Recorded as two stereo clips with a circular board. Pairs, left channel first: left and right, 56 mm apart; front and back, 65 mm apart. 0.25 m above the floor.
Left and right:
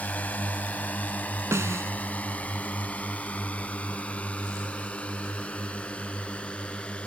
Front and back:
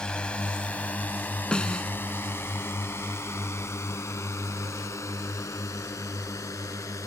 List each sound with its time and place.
0.0 s a drone: 65° left; by 7.1 s 25° left
1.5 s a snare drum: 75° right